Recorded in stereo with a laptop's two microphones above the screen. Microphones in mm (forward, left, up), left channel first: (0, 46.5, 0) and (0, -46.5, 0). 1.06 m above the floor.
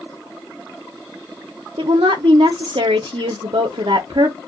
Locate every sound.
1.8 s a woman speaking: 70° right (ahead or behind), 0.5 m